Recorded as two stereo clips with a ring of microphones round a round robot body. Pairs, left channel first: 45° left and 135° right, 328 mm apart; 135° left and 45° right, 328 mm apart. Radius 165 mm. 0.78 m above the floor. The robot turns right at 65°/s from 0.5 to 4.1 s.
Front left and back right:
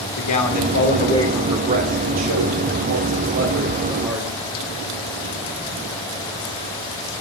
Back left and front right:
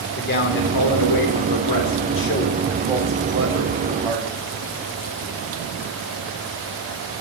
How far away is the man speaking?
About 3 m.